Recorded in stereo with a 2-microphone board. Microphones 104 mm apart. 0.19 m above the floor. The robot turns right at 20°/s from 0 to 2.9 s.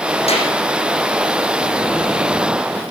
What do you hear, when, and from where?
0.3 s a clap: 80° left, 8.5 m; by 0.5 s 75° left (ahead or behind), 8.5 m